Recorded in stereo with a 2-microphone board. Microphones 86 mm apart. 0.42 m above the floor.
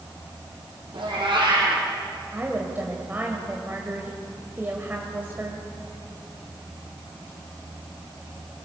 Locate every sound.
0.9 s a cat meowing: 70° right (ahead or behind), 6.5 m
2.3 s a woman speaking: 20° right (ahead or behind), 2.5 m